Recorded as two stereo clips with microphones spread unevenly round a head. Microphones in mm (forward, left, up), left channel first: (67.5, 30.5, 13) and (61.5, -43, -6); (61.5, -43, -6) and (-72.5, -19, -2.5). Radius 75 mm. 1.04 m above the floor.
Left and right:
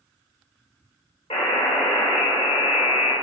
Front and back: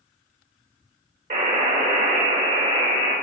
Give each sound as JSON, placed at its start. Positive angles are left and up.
{"t": 1.3, "sound": "a buzzer", "azimuth_deg": 125, "distance_m": 4.0}